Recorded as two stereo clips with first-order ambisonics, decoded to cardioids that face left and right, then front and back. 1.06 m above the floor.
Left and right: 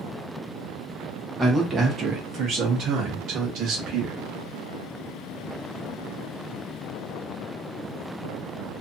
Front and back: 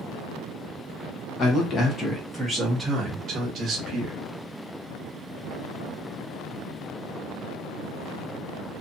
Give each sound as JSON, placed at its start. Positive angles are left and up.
{"t": 1.4, "sound": "a man speaking", "azimuth_deg": -10, "distance_m": 0.9}